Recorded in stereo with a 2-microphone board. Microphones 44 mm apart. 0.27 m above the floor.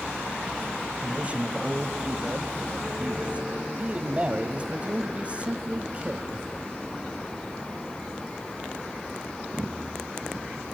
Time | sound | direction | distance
1.0 | a man speaking | 30° right (ahead or behind) | 1.1 m